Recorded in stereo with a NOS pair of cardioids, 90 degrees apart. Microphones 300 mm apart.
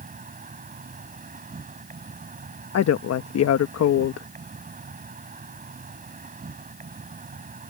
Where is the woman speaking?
55° left.